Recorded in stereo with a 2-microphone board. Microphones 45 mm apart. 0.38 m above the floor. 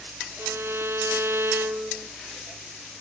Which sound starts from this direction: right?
A violin, at 0.4 s.